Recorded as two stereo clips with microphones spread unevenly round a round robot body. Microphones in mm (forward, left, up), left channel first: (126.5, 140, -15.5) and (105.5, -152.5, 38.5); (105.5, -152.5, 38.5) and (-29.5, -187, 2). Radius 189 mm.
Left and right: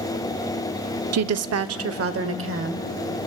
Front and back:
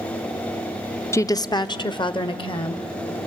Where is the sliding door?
No sliding door in this recording.